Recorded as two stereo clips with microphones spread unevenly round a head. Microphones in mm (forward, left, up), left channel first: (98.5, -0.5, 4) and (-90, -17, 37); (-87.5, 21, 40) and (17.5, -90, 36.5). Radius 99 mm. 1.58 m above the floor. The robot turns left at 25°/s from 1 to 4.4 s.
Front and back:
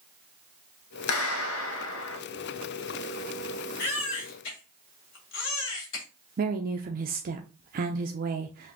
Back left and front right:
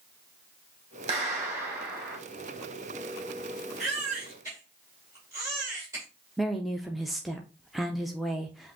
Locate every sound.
1.1 s a clap: 10° left, 1.1 m; by 2.2 s 15° right, 1.1 m
3.8 s a baby crying: 45° left, 1.8 m; by 6.0 s 30° left, 1.8 m
6.4 s a woman speaking: 135° right, 0.5 m